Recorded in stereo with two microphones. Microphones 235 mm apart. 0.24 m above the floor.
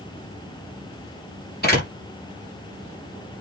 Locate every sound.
1.6 s a door slam: 40° left (ahead or behind), 5 m